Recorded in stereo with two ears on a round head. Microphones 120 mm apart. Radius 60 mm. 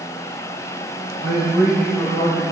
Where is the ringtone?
I don't hear a ringtone.